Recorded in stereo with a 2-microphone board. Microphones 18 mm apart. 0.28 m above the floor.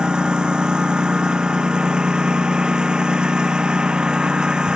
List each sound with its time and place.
0.0 s a lawn mower: 55° right (ahead or behind)